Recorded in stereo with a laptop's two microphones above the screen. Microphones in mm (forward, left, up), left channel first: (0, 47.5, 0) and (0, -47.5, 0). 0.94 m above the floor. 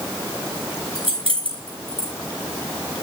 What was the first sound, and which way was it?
Keys jangling, 75° right (ahead or behind).